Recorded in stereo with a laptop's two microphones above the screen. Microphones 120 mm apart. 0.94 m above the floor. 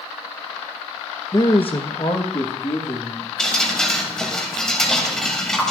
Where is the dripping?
5° left (ahead or behind), 2.5 m.